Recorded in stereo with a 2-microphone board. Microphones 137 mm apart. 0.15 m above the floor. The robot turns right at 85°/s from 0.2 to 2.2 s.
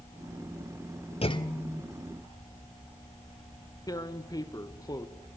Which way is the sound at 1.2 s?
120° left.